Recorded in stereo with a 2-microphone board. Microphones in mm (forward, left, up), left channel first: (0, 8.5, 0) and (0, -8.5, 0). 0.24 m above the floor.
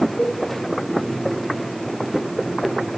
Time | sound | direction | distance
0.2 | a cowbell | 65° left (ahead or behind) | 9 m